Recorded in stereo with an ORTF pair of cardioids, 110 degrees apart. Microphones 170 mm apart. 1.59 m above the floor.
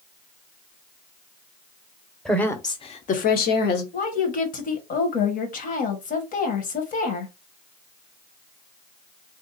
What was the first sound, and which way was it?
A woman speaking, straight ahead.